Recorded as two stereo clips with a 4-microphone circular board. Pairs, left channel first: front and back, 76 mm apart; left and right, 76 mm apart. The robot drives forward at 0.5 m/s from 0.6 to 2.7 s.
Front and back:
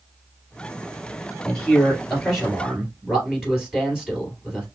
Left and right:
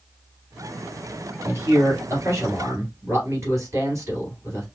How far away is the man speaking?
About 2 m.